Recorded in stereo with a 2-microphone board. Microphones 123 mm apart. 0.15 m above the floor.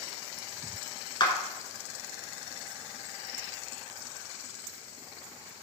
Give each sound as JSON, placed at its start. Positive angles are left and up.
{"t": 1.2, "sound": "a clap", "side_deg": 40, "distance_m": 1.4}